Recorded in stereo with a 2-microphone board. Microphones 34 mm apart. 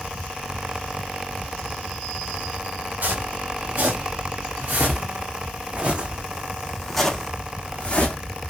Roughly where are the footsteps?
Right.